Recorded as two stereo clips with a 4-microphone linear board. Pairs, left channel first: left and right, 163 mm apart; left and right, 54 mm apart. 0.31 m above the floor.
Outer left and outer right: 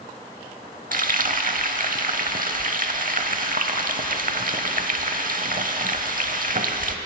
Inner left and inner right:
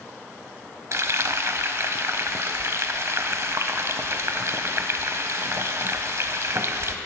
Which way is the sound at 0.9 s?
60° right (ahead or behind).